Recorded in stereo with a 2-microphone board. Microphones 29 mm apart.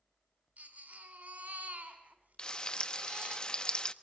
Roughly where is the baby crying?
Right.